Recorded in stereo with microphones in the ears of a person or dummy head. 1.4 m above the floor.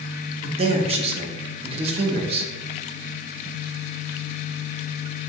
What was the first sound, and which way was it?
A man speaking, 30° right (ahead or behind).